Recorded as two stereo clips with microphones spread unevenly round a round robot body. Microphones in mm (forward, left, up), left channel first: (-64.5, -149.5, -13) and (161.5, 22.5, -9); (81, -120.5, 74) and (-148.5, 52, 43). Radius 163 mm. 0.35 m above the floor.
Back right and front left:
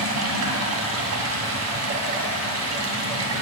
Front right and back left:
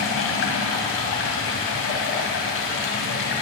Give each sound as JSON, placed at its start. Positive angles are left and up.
{"t": 0.0, "sound": "running water", "azimuth_deg": 10, "distance_m": 2.5}